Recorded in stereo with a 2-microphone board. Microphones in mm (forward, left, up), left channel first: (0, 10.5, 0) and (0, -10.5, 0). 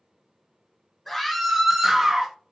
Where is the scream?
10° left (ahead or behind), 1.2 m; by 2.3 s 30° right (ahead or behind), 1.5 m.